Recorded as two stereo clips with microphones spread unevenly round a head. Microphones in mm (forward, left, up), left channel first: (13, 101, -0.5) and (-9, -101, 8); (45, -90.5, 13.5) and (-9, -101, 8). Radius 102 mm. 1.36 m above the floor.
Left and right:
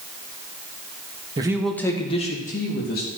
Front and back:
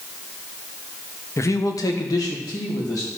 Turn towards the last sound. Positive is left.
turn(degrees=40)